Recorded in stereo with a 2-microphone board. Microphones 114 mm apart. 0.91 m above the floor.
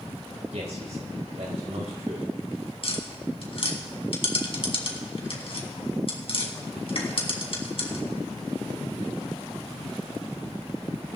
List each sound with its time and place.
0.5 s a man speaking: 80° right, 4.5 m
2.8 s tapping: 60° left (ahead or behind), 2 m